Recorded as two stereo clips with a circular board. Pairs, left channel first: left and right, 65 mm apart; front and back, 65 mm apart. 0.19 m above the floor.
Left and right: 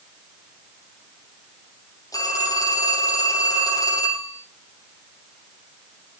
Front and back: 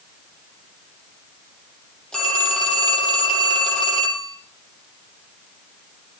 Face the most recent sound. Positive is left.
turn(degrees=80)